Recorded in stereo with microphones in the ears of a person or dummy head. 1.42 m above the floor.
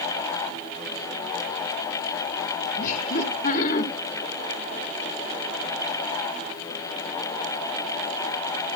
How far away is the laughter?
About 2.0 m.